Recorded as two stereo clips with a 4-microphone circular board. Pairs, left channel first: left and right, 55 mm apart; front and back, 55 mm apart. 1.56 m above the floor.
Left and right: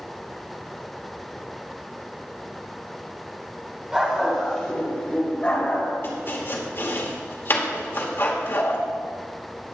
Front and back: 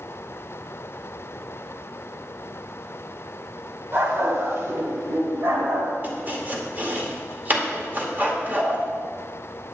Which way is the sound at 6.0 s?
130° left.